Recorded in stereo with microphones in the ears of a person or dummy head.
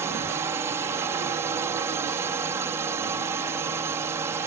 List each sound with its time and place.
0.0 s a drone: 15° right (ahead or behind)